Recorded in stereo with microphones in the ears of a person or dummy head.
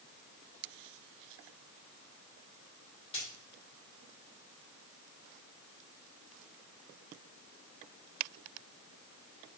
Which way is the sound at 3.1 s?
30° left (ahead or behind).